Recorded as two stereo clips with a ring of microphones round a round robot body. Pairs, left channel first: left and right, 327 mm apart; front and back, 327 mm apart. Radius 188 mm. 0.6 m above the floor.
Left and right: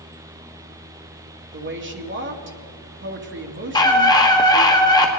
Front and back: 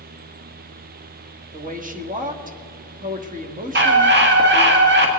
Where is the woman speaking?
125° right, 1.6 m.